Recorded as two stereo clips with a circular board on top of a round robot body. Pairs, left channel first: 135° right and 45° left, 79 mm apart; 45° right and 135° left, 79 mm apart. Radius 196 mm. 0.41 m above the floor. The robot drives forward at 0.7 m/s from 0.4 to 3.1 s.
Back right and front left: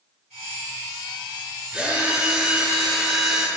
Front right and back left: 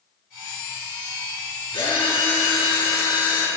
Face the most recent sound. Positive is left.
turn(degrees=-40)